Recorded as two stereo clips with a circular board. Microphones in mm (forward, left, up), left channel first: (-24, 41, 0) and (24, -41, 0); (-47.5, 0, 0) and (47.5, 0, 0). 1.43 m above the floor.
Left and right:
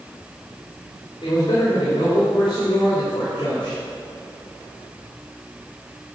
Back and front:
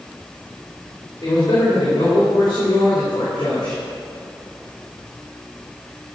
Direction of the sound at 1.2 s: 150° left.